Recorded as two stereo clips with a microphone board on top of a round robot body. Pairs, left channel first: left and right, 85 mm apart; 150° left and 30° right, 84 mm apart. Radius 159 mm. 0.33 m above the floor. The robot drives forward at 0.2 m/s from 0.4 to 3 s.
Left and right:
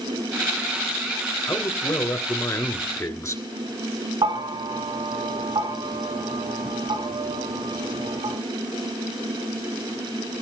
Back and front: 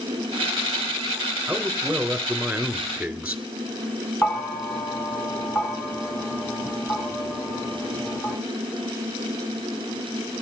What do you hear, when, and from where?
1.5 s a man speaking: 40° left, 2.5 m; by 3.4 s 45° left, 2.5 m
4.2 s a bell: 130° right, 2.0 m